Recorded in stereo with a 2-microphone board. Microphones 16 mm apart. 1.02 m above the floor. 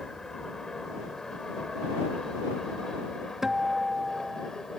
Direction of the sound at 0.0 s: 35° left (ahead or behind).